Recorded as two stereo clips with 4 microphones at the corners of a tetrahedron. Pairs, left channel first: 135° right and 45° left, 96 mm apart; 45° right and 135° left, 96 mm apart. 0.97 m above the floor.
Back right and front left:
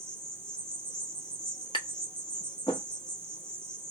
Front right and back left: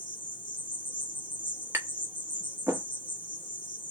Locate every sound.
0.0 s an insect: 55° right, 1.8 m
1.7 s tapping: 160° right, 1.3 m